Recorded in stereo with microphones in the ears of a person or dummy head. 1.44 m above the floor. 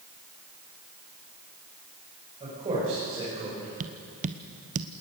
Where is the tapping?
40° right (ahead or behind), 0.8 m.